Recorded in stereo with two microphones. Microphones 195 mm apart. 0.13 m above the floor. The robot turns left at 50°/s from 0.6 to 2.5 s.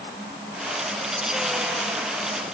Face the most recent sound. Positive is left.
No sound to turn to.